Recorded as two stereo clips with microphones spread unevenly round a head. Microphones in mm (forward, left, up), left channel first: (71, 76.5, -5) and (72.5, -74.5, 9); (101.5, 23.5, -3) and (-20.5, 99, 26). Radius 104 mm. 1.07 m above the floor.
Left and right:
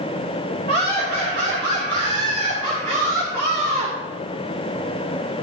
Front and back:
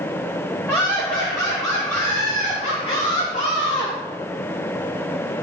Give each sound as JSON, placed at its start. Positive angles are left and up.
{"t": 0.7, "sound": "laughter", "azimuth_deg": -115, "distance_m": 3.0}